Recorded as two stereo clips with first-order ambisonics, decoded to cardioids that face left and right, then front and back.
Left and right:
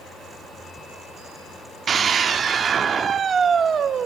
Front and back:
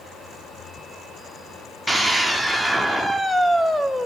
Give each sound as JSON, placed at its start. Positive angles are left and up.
{"t": 1.9, "sound": "a scream", "azimuth_deg": -80, "distance_m": 0.8}